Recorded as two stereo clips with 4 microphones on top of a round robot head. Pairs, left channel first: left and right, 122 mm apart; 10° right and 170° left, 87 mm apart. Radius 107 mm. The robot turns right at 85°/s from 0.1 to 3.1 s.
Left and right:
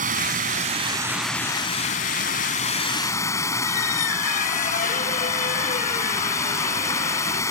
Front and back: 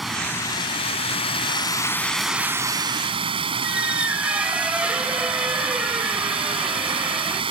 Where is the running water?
100° right; by 7.5 s 155° left.